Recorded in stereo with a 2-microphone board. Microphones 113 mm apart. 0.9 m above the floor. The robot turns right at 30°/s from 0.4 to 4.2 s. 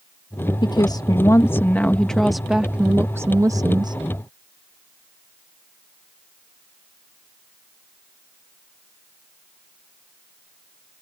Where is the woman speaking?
130° left; by 4.0 s 130° right.